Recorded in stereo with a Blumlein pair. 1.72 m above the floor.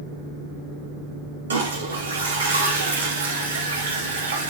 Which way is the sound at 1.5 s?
70° right.